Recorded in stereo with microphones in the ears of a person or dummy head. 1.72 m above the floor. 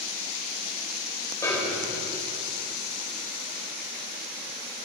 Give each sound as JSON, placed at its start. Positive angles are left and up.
{"t": 1.4, "sound": "a snare drum", "side_deg": 20, "distance_m": 1.4}